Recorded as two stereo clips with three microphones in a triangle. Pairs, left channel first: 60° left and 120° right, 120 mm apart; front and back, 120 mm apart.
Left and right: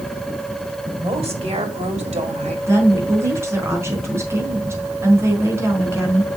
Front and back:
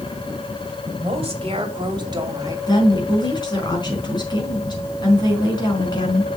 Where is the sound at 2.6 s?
50° right, 4.5 m.